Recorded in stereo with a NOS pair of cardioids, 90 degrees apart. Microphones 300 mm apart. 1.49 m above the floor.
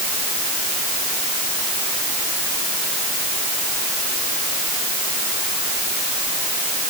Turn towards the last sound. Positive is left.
No sound to turn to.